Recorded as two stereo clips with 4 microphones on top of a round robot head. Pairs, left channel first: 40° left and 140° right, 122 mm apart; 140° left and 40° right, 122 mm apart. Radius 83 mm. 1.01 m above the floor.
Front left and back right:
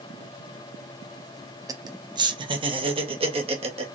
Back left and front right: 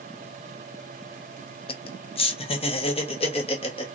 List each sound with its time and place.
1.7 s laughter: 165° left, 1.0 m; by 4.0 s straight behind, 2.0 m